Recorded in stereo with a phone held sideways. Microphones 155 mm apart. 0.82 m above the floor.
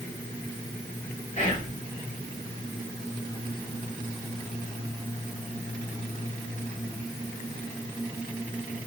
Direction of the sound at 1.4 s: 50° left (ahead or behind).